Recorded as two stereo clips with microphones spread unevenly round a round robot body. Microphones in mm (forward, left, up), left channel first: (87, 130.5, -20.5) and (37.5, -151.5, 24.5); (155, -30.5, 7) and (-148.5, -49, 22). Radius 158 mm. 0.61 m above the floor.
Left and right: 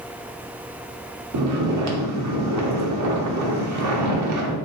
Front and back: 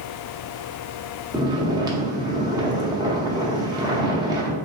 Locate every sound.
1.3 s snoring: 100° right, 0.7 m